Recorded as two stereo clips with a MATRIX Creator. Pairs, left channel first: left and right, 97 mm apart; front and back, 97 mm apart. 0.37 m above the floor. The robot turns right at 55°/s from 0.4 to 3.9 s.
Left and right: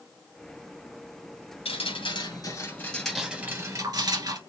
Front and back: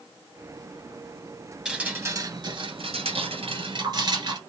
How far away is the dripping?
About 1.5 m.